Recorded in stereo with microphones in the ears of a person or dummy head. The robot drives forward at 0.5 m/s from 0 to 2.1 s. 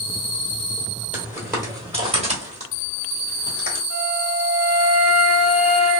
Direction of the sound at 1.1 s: 10° right (ahead or behind).